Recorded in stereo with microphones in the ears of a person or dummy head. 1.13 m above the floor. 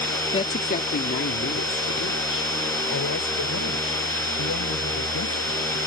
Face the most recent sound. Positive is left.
turn(degrees=85)